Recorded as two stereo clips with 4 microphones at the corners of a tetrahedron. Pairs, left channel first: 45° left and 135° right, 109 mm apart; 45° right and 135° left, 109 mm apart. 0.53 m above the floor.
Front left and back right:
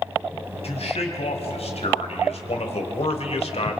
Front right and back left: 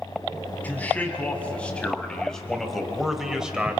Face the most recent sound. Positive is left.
turn(degrees=55)